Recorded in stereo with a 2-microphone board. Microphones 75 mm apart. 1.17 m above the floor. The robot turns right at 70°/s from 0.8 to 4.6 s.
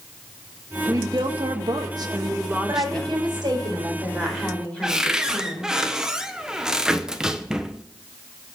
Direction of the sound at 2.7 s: 120° right.